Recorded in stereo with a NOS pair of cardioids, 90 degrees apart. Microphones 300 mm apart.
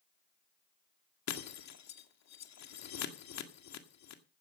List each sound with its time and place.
1.3 s breaking glass: 60° left, 1.9 m